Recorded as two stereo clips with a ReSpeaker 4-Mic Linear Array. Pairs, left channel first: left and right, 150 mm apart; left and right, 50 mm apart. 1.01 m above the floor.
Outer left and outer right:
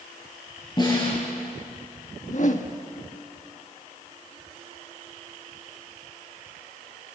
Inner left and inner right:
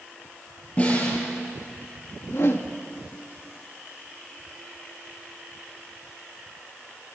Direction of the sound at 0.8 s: 30° left (ahead or behind).